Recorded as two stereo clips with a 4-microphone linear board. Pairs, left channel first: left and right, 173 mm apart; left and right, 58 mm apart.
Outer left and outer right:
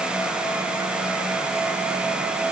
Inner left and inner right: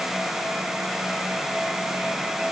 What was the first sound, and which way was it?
Only background noise.